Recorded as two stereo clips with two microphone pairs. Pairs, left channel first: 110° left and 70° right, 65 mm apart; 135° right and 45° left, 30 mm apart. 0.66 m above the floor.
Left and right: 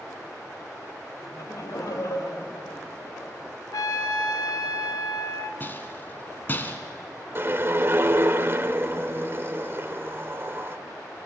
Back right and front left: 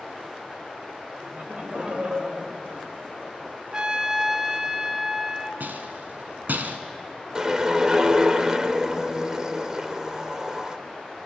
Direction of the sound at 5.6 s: 50° left.